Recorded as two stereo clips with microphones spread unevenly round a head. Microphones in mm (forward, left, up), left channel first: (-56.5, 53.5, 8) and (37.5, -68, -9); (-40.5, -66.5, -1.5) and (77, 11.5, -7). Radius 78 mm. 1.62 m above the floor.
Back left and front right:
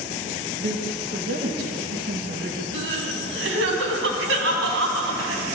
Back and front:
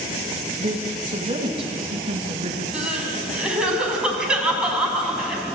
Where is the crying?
50° right, 4.5 m.